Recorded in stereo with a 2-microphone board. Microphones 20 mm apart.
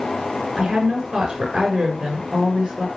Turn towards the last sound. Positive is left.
turn(degrees=-55)  # may be behind; listen again after turning